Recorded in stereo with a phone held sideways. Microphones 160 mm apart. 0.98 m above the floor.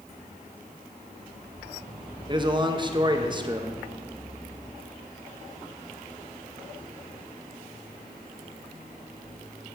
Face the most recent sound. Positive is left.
turn(degrees=-30)  # may be behind; listen again after turning